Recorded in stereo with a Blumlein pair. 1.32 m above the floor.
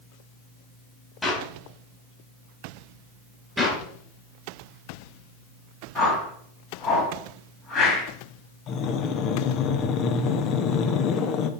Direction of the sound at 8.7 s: 35° left.